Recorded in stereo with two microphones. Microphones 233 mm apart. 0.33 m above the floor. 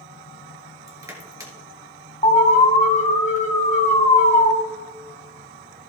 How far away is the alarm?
About 2.5 m.